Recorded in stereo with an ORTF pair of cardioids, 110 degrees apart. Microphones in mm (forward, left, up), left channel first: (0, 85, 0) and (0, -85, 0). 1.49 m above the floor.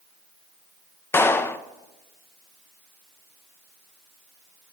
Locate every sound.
1.1 s a clap: 15° left, 0.5 m